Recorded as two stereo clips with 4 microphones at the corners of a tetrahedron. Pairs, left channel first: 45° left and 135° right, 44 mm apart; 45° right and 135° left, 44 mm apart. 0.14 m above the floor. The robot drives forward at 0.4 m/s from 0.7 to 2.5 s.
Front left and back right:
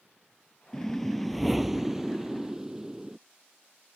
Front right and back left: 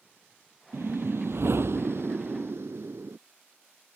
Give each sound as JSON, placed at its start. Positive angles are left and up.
{"t": 0.7, "sound": "a whoosh", "azimuth_deg": 125}